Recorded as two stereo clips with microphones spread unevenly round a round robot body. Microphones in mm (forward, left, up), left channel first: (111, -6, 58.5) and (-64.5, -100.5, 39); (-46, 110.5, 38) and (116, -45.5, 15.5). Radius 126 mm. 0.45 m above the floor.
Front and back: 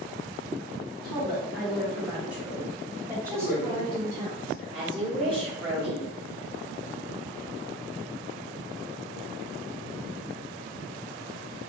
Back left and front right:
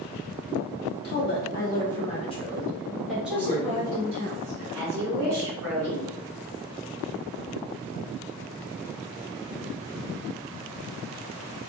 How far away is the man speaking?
About 1.8 m.